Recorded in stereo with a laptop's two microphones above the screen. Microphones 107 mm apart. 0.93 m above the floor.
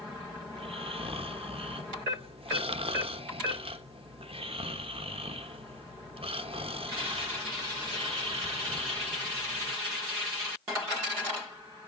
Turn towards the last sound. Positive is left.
turn(degrees=-60)  # may be behind; listen again after turning